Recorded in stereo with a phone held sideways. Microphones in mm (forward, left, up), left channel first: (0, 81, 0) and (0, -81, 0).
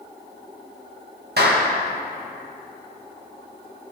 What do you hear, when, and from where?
1.4 s a clap: 85° right, 1.6 m